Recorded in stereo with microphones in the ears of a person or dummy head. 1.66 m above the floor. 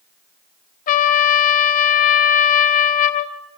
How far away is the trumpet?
About 1.1 m.